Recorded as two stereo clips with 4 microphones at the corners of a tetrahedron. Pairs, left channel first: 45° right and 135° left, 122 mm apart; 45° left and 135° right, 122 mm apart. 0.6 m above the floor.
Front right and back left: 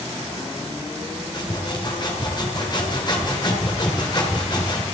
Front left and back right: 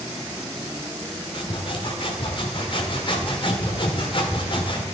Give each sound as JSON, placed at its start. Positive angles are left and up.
{"t": 1.3, "sound": "sawing", "azimuth_deg": 5, "distance_m": 1.7}